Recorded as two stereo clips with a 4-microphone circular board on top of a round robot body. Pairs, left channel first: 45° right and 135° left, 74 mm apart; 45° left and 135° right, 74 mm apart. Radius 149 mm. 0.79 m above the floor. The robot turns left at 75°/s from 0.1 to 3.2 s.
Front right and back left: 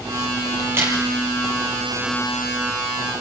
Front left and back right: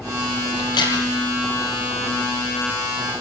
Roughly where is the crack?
Left.